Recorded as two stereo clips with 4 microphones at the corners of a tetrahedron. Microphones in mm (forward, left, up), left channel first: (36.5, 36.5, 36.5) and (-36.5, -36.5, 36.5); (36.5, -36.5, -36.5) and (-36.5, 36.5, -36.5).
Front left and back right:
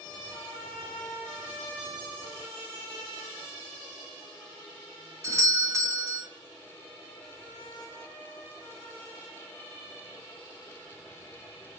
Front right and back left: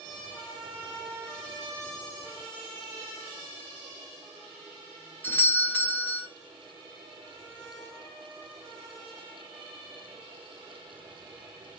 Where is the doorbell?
100° right, 1.4 m.